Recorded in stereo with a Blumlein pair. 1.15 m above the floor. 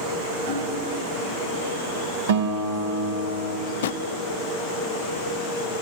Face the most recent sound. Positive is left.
turn(degrees=60)